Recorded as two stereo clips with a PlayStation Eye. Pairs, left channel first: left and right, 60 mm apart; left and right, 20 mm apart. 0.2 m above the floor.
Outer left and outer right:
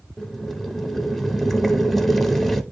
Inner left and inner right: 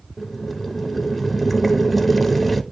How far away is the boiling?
About 0.6 m.